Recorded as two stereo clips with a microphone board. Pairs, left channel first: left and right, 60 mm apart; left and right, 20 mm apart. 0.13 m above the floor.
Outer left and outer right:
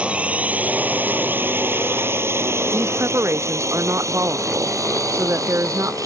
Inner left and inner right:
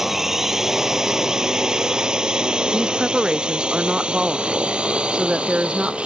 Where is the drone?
20° right (ahead or behind); by 6.1 s 70° right (ahead or behind).